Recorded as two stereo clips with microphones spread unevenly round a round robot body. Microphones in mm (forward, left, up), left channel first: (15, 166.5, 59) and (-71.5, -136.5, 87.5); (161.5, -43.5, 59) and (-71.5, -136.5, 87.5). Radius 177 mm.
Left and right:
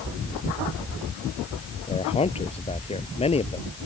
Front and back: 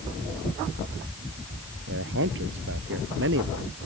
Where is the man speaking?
145° left.